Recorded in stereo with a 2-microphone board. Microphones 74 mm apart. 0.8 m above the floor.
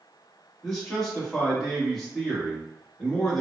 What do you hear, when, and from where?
0.6 s a man speaking: 5° left (ahead or behind), 1.4 m